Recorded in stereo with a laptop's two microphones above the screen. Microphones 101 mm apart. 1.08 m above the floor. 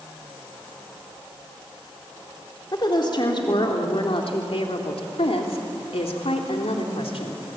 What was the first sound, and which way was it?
A woman speaking, 45° left (ahead or behind).